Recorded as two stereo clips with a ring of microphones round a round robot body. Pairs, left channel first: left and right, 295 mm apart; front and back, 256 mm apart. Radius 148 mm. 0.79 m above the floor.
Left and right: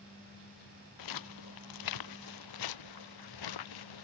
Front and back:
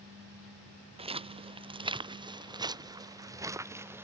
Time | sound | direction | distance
1.0 | footsteps | 110° left | ?